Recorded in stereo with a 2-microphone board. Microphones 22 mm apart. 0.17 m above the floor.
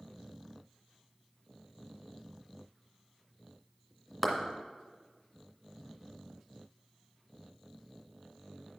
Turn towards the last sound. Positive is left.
turn(degrees=0)  # may be behind; listen again after turning